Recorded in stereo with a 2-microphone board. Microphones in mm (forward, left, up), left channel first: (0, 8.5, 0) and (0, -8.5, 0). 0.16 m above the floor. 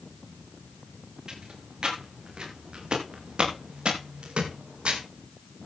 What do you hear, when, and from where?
1.3 s footsteps: 35° right (ahead or behind), 8 m; by 5.0 s 70° right (ahead or behind), 5.5 m